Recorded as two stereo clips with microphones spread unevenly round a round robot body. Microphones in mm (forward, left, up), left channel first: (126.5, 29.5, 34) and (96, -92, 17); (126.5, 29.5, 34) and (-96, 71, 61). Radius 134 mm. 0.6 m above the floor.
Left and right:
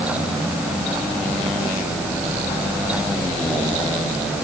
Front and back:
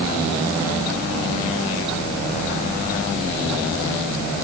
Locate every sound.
Only background noise.